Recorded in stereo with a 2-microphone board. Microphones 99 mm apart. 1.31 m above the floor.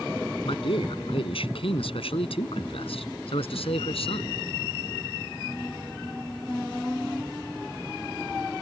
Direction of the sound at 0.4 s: 70° left (ahead or behind).